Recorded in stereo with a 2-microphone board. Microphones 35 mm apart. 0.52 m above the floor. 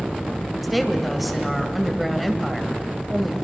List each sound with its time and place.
0.6 s a woman speaking: centre (ahead or behind), 2.5 m